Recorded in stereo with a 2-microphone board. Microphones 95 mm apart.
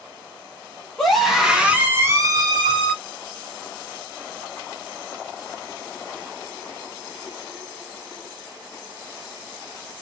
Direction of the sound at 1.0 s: 5° left (ahead or behind).